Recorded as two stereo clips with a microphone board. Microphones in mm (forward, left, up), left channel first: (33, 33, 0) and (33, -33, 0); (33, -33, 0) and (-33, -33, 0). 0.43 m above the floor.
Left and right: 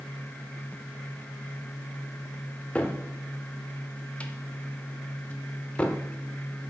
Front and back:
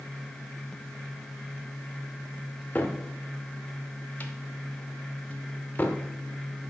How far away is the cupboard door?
About 0.8 m.